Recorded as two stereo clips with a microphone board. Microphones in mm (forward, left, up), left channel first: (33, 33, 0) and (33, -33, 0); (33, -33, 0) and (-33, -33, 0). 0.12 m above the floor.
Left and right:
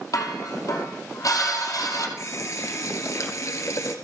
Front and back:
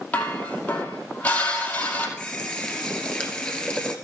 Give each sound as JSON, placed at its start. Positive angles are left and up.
{"t": 0.1, "sound": "dishes clattering", "azimuth_deg": 60, "distance_m": 2.5}
{"t": 2.2, "sound": "a running tap", "azimuth_deg": 75, "distance_m": 1.3}